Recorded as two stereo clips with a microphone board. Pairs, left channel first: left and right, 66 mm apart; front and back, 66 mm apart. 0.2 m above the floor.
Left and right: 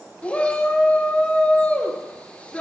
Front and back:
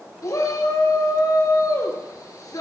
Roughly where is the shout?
Ahead.